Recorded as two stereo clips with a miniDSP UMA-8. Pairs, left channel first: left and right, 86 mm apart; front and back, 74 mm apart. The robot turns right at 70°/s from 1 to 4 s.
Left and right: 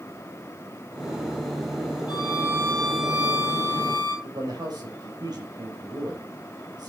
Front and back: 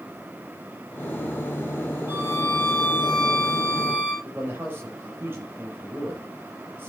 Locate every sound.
2.1 s a violin: 120° left, 4 m; by 4.1 s 105° right, 4 m
4.2 s a man speaking: 125° right, 4.5 m